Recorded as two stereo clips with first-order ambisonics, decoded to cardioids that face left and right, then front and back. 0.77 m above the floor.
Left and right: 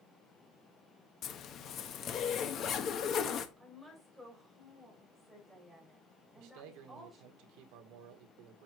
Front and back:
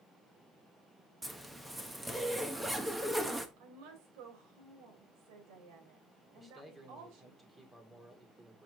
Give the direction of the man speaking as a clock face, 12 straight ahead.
3 o'clock.